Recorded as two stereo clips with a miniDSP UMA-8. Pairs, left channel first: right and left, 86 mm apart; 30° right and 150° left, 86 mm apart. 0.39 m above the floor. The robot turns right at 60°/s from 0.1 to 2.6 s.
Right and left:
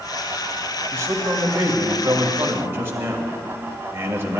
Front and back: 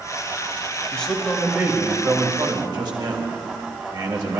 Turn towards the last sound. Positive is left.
turn(degrees=145)